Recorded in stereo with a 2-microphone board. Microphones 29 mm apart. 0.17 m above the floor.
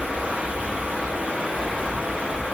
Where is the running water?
70° right (ahead or behind), 0.7 m.